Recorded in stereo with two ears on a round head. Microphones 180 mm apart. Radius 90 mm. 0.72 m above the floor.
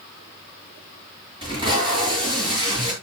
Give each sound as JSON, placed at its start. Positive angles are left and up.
{"t": 1.4, "sound": "tape being pulled", "side_deg": -25, "distance_m": 7.5}